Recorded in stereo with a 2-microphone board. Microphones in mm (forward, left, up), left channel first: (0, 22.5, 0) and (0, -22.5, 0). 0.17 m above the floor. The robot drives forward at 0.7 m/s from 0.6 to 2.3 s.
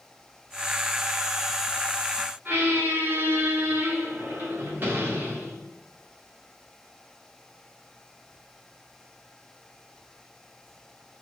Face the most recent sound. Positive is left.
turn(degrees=-45)  # may be behind; listen again after turning